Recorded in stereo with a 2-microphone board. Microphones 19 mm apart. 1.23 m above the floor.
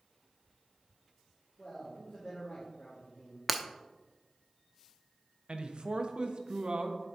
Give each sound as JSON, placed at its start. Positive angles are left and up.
{"t": 1.6, "sound": "a man speaking", "side_deg": 50, "distance_m": 3.5}
{"t": 3.5, "sound": "breaking glass", "side_deg": -5, "distance_m": 0.7}
{"t": 5.5, "sound": "a man speaking", "side_deg": -55, "distance_m": 1.1}